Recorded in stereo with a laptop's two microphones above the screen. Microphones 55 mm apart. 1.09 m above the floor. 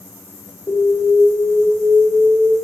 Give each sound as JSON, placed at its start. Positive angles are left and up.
{"t": 0.7, "sound": "an alarm", "side_deg": 60, "distance_m": 2.0}